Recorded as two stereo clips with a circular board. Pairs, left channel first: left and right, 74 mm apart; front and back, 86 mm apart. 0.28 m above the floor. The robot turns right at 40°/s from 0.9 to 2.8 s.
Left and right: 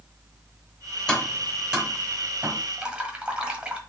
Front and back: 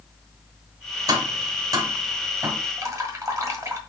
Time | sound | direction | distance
1.1 | tapping | 165° left | 1.3 m
2.8 | dripping | 160° right | 1.3 m